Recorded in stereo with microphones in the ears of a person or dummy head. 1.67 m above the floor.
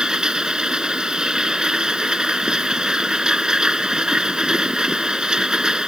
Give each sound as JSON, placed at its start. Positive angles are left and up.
{"t": 0.0, "sound": "a machine running", "side_deg": -5}